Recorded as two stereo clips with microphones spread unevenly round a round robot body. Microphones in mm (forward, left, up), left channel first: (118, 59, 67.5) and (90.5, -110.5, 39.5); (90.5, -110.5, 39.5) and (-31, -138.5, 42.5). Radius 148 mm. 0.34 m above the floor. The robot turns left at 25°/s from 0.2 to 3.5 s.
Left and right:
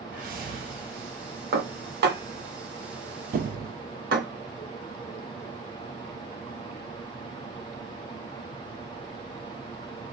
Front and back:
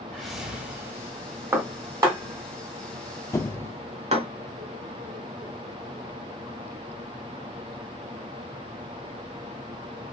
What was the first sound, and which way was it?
A whoosh, 75° right.